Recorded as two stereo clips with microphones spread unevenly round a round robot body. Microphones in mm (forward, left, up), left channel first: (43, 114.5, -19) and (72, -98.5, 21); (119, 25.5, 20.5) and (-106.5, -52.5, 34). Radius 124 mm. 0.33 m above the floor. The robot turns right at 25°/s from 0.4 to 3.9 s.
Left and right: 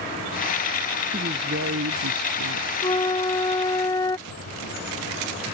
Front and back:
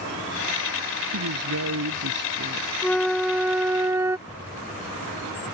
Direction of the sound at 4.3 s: 80° right.